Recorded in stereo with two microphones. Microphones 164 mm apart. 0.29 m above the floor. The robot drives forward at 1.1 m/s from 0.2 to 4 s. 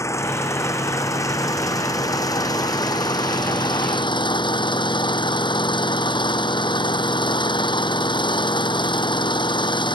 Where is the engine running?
20° left (ahead or behind); by 10.0 s 30° left (ahead or behind).